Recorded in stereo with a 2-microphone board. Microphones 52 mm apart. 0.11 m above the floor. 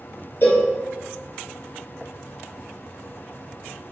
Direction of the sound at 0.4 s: 50° left (ahead or behind).